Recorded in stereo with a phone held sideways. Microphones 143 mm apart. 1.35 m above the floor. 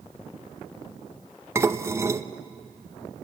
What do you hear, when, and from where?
1.6 s dishes clattering: 20° right (ahead or behind), 0.8 m